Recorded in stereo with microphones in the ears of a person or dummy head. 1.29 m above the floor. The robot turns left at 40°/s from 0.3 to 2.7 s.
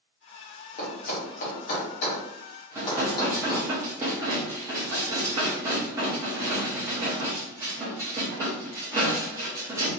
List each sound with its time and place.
0.8 s a thud: 40° left (ahead or behind), 0.7 m; by 3.7 s 30° left (ahead or behind), 0.7 m
2.8 s dishes clattering: 15° right (ahead or behind), 0.7 m